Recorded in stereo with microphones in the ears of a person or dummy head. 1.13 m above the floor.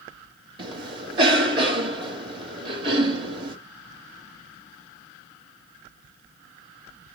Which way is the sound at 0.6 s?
25° right (ahead or behind).